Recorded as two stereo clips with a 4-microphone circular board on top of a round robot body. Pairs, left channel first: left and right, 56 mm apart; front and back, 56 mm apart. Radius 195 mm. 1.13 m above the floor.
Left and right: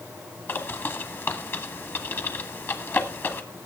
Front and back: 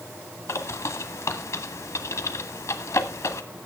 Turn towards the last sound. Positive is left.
turn(degrees=40)